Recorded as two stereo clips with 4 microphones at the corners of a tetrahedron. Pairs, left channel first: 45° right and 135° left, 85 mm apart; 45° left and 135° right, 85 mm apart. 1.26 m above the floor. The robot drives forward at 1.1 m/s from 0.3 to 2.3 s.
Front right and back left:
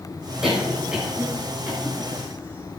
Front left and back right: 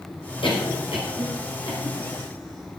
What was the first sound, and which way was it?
A cough, 50° left.